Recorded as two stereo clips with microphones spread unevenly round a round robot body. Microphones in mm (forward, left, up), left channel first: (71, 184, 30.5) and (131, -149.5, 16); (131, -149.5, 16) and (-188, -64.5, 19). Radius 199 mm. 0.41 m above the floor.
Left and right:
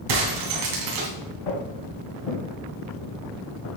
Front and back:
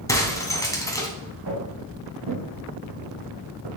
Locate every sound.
0.1 s breaking glass: 95° right, 2.5 m
1.5 s footsteps: 110° left, 3.5 m; by 3.7 s 135° left, 2.5 m